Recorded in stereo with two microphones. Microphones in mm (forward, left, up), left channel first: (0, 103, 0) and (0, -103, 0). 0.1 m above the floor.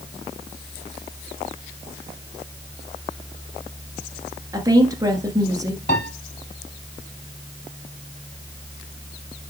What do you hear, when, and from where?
4.5 s a woman speaking: 15° right (ahead or behind), 1.3 m
5.9 s a piano: 50° left (ahead or behind), 1.7 m